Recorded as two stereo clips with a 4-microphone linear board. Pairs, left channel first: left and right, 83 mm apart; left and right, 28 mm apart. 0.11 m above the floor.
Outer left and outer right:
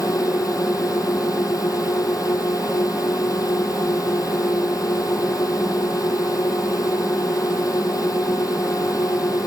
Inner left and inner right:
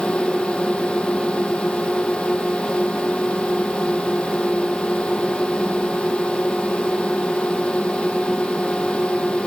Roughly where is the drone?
Left.